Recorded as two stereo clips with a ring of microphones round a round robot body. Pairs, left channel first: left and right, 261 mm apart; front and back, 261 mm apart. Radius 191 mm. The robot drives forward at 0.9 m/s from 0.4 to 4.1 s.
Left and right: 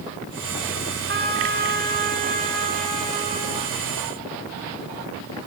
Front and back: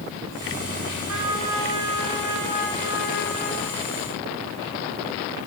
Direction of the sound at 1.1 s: 140° right.